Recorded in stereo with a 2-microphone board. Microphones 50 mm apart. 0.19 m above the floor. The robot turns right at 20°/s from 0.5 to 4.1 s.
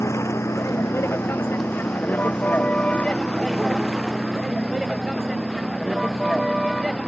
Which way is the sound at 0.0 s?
65° left (ahead or behind).